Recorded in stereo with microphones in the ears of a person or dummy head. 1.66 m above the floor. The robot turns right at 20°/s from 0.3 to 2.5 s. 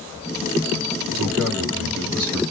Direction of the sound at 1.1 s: 80° right.